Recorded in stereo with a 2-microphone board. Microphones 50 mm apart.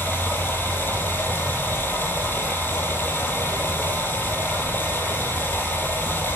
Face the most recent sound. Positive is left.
turn(degrees=40)  # may be behind; listen again after turning